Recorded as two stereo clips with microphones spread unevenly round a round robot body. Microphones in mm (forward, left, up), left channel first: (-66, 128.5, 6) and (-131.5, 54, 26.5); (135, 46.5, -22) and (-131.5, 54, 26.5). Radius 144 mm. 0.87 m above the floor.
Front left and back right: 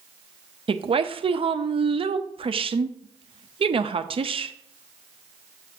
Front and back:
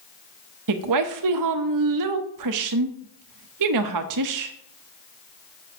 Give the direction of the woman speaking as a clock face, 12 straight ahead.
5 o'clock.